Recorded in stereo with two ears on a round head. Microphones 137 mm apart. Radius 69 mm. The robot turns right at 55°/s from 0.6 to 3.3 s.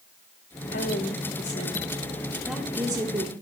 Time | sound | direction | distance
0.7 | a woman speaking | 85° left | 2.5 m